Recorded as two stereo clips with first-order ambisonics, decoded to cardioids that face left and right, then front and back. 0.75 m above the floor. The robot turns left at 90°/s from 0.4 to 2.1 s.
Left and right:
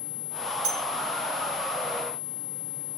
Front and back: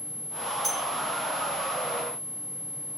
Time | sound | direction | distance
0.6 | a bell | 95° right | 2 m